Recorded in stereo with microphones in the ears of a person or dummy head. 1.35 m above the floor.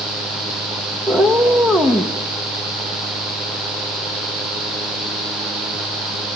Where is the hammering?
I don't hear hammering.